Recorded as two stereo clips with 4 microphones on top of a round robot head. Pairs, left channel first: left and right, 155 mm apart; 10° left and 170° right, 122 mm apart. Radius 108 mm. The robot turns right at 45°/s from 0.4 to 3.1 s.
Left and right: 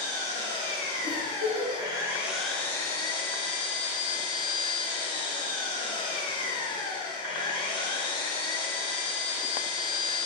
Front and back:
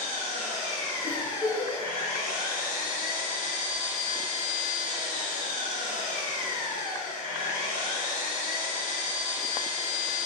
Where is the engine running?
90° right, 2.5 m; by 10.3 s 30° left, 2.5 m.